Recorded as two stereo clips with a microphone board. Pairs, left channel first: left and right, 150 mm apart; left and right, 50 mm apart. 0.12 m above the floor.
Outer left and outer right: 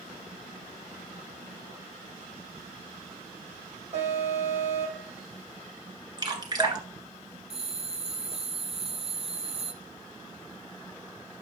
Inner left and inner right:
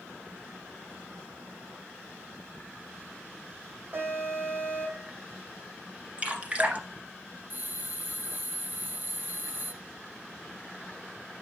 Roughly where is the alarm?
Right.